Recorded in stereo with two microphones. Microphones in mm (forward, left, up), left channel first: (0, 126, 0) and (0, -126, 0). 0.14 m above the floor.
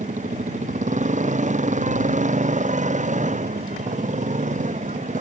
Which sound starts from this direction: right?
A motorcycle, at 0.0 s.